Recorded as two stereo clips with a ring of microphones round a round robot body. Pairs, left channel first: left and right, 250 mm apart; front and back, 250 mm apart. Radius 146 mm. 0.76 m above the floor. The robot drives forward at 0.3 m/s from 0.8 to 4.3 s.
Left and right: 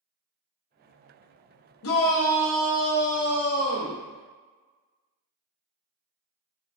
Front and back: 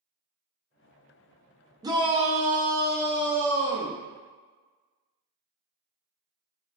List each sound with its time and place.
1.8 s a shout: 105° left, 0.7 m; by 4.0 s 145° left, 1.0 m